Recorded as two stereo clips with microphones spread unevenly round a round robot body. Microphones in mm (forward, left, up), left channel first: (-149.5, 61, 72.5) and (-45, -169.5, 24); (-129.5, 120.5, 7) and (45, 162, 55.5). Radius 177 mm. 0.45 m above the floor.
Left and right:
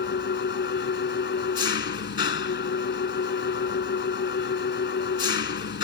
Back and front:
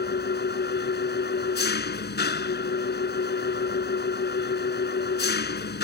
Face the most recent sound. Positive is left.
turn(degrees=160)